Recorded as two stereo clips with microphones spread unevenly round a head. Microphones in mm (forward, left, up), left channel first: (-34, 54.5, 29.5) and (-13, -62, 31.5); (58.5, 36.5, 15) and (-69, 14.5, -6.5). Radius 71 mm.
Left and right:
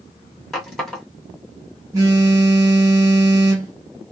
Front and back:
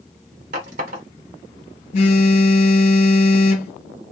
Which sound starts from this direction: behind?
A running tap, at 0.5 s.